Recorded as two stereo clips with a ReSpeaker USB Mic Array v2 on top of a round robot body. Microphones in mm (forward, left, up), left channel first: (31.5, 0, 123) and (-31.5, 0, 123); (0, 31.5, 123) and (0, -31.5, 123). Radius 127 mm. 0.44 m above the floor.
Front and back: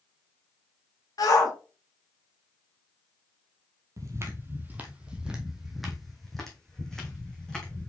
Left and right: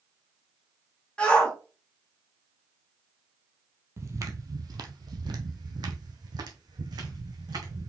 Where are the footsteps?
140° right, 0.8 m; by 7.9 s 80° right, 2 m.